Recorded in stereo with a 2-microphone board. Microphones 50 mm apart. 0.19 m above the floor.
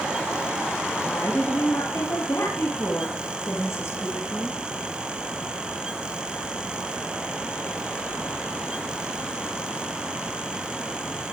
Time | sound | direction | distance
1.0 | a woman speaking | 55° left (ahead or behind) | 3.5 m